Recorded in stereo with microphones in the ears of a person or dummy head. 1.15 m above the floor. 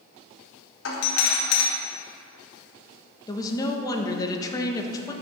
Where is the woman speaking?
25° left (ahead or behind), 1.2 m.